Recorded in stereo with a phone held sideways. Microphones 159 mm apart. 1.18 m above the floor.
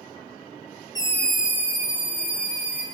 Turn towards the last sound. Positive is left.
turn(degrees=-50)  # may be behind; listen again after turning